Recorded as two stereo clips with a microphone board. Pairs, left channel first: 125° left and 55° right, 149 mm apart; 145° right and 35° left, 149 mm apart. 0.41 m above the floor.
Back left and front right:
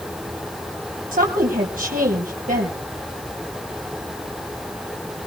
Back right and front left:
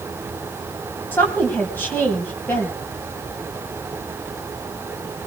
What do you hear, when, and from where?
1.1 s a woman speaking: 70° right, 3 m